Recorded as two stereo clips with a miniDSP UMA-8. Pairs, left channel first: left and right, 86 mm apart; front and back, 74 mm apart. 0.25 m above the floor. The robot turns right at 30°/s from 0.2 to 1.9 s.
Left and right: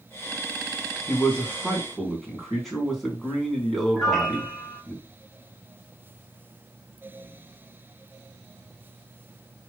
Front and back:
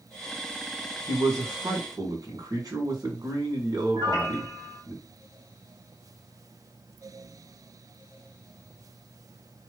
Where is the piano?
175° left, 1.3 m.